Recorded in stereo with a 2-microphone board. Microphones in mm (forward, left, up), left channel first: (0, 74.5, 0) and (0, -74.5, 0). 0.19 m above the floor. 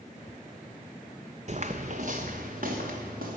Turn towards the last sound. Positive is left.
turn(degrees=-75)  # may be behind; listen again after turning